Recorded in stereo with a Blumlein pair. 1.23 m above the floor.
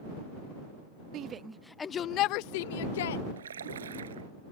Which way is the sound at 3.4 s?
65° right.